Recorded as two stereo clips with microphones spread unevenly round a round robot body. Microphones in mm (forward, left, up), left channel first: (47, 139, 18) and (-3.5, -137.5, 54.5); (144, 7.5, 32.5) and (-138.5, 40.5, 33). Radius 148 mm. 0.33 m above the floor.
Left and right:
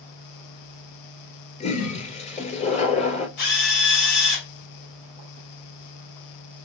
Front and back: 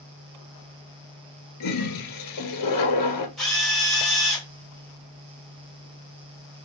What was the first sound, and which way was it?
A toilet flushing, 10° left.